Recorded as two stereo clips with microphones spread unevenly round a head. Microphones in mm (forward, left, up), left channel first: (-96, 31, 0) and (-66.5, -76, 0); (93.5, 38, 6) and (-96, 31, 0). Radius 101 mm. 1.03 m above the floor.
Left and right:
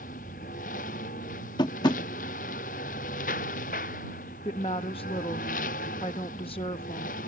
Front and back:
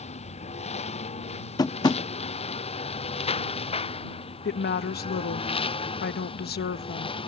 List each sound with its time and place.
0.0 s a lawn mower: 60° left; by 7.3 s 65° left
1.6 s tapping: 65° left
4.5 s a woman speaking: 45° left